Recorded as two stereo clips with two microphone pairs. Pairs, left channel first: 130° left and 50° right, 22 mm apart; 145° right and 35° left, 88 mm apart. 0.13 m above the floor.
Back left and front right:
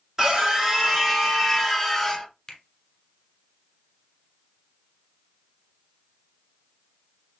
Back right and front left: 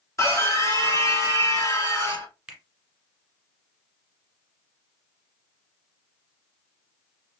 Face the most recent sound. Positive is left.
turn(degrees=110)